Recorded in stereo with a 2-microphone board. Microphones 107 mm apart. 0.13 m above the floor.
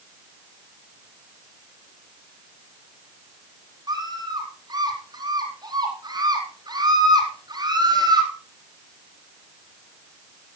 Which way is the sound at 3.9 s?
40° right (ahead or behind).